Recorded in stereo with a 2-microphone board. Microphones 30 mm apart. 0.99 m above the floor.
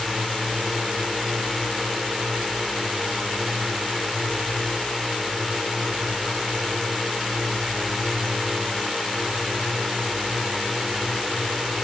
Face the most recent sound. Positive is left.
turn(degrees=0)  # may be behind; listen again after turning